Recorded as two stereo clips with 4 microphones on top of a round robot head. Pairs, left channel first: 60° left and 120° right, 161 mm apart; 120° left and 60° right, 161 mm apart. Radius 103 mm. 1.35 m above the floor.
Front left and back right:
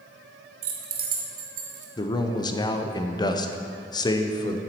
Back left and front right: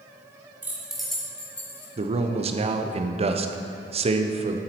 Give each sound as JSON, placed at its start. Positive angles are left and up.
{"t": 0.6, "sound": "keys jangling", "azimuth_deg": -135, "distance_m": 0.7}
{"t": 2.0, "sound": "a man speaking", "azimuth_deg": -5, "distance_m": 0.7}